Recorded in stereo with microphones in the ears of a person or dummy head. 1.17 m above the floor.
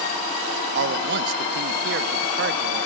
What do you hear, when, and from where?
0.8 s a man speaking: 55° right (ahead or behind), 0.9 m